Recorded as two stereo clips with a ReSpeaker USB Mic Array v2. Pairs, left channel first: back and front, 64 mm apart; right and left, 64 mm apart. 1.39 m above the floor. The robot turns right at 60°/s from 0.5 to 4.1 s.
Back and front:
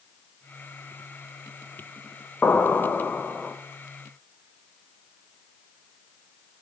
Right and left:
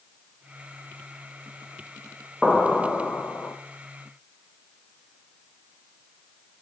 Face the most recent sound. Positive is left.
turn(degrees=-75)